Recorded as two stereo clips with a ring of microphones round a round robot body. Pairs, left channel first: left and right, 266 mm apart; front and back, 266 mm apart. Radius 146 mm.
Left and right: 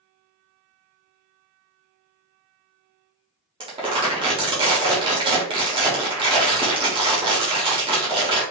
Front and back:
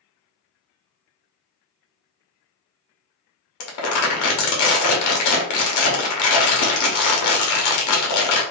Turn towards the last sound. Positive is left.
turn(degrees=-15)